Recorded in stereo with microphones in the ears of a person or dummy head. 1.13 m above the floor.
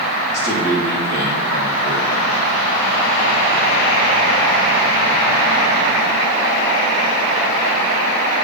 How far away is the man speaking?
About 2.5 m.